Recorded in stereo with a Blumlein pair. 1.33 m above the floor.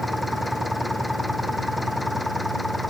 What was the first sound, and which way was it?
An engine running, 5° left.